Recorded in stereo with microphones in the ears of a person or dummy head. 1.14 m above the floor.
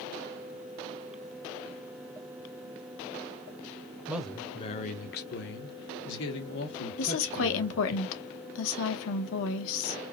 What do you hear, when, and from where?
4.1 s a man speaking: 5° right (ahead or behind), 0.5 m; by 8.0 s 65° left (ahead or behind), 2 m
7.0 s a woman speaking: 75° left (ahead or behind), 0.9 m